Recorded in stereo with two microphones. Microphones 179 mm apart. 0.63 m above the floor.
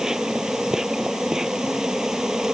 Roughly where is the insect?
Centre.